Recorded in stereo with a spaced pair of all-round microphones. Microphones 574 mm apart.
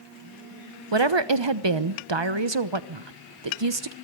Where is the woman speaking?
50° right (ahead or behind), 1.1 m.